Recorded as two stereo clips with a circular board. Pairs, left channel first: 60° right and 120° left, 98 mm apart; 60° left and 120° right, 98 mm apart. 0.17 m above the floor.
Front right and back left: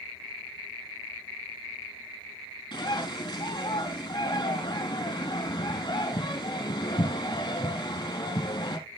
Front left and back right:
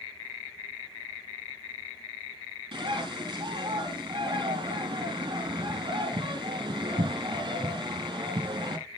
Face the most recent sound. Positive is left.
turn(degrees=-85)